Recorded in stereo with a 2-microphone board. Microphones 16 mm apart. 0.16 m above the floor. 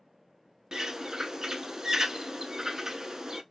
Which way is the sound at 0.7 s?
40° right (ahead or behind).